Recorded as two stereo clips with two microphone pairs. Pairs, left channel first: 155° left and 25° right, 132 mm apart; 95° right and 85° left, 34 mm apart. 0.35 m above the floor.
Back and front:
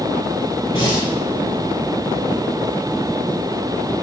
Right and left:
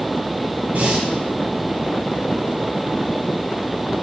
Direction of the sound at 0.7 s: 110° left.